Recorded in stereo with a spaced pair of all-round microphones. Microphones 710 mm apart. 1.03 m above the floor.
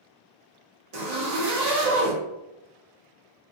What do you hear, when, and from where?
0.9 s a zipper: 65° right (ahead or behind), 1.0 m